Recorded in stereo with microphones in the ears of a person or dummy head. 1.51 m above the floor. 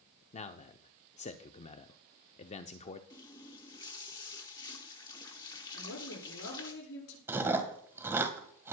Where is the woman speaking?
75° left (ahead or behind), 7.5 m.